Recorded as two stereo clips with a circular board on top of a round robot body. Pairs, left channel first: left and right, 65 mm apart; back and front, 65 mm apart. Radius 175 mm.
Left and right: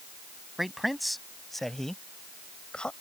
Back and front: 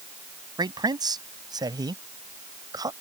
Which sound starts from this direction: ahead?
A man speaking, at 0.6 s.